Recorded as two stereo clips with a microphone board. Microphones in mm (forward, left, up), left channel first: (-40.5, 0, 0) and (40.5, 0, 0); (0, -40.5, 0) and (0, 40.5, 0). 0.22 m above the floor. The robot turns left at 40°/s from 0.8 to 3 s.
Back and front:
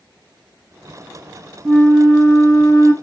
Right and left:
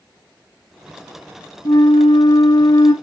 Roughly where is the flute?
Right.